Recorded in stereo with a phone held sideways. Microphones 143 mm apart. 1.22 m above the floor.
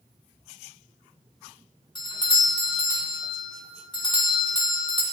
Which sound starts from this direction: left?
A doorbell, at 1.9 s.